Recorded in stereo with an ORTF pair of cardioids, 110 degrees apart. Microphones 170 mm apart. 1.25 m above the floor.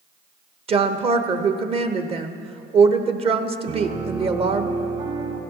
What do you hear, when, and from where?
0.7 s a woman speaking: 35° right, 1.0 m
3.7 s a piano: 55° right, 4.5 m